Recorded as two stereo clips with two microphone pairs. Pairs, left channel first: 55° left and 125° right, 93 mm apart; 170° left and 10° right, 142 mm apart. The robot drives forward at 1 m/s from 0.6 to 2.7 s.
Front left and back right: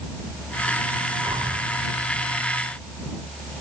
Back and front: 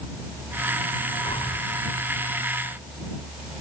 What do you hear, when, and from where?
1.2 s breathing: 150° right